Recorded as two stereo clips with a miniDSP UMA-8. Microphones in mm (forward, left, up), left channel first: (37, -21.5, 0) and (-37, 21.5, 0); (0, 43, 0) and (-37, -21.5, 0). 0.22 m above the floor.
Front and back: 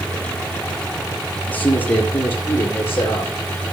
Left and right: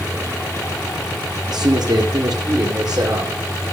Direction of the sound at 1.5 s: 100° right.